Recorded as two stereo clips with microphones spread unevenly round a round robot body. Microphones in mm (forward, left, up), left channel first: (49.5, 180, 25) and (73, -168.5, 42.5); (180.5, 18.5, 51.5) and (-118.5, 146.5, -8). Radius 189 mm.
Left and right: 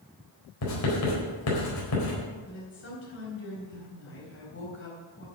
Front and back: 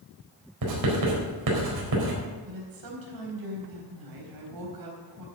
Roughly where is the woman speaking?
Behind left.